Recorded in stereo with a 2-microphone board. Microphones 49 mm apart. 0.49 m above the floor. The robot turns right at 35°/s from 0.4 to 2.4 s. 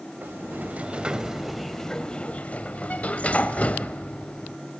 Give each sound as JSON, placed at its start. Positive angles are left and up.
{"t": 0.2, "sound": "a sliding door", "azimuth_deg": -45, "distance_m": 0.9}